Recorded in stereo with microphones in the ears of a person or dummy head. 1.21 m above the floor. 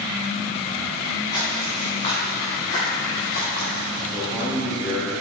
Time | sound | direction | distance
1.3 | footsteps | 30° left (ahead or behind) | 2.5 m
4.1 | a man speaking | 10° right (ahead or behind) | 1.6 m